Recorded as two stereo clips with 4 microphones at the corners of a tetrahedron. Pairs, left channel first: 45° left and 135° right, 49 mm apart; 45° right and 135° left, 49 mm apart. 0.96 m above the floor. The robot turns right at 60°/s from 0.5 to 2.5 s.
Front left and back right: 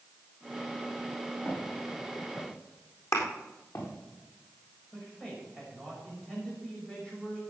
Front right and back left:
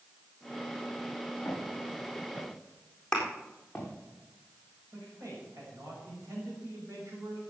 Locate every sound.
1.4 s footsteps: 5° right, 8.5 m; by 3.9 s 40° left, 7 m
3.1 s a thud: 35° left, 3.5 m
4.9 s a man speaking: 120° left, 6 m